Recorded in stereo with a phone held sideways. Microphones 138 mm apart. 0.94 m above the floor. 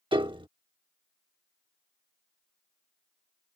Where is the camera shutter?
No camera shutter in this recording.